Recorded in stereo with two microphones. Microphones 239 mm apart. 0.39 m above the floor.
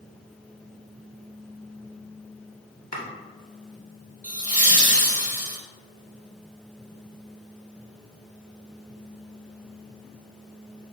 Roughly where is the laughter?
Right.